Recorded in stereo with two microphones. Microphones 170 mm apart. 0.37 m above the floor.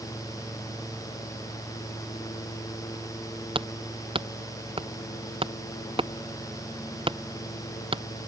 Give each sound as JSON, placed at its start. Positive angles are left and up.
{"t": 3.5, "sound": "hammering", "side_deg": -30}